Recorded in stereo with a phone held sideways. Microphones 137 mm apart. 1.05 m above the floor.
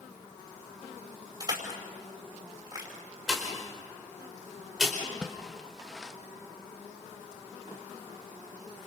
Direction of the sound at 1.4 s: 30° right (ahead or behind).